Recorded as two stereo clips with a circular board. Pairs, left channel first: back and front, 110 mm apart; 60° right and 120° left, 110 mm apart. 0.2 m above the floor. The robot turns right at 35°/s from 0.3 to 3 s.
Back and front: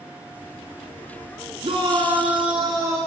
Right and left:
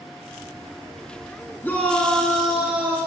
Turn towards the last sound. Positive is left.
turn(degrees=55)